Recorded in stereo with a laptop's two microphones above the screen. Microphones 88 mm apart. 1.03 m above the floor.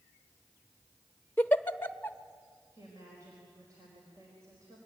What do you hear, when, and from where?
1.4 s a giggle: 25° left (ahead or behind), 0.7 m
2.7 s a woman speaking: 40° right (ahead or behind), 4.5 m